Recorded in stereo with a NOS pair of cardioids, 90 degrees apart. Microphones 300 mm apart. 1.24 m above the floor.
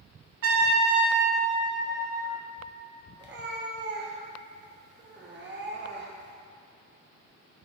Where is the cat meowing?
40° right, 1.2 m.